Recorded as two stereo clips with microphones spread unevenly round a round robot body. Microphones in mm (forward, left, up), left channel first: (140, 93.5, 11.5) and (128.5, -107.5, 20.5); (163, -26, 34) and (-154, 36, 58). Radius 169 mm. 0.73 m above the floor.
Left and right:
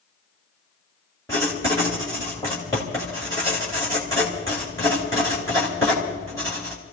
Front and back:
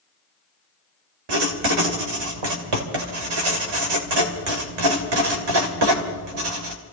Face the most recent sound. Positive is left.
turn(degrees=165)